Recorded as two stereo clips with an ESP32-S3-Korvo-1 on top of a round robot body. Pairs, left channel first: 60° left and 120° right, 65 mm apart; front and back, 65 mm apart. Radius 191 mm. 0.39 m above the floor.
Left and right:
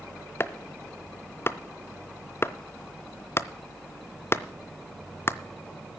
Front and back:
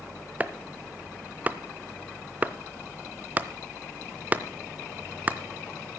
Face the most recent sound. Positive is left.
turn(degrees=115)